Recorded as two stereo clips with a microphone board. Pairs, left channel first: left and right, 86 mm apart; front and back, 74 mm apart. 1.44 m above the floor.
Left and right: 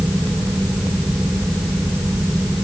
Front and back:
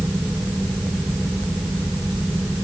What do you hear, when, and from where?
Only background noise.